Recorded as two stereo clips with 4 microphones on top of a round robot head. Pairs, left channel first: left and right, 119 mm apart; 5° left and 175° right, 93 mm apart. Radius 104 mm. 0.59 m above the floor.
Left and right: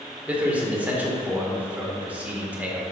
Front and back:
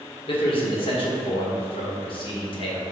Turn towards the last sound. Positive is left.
turn(degrees=-10)